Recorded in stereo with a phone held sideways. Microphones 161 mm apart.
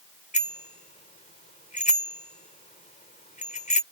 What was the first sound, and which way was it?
A bicycle bell, 55° left (ahead or behind).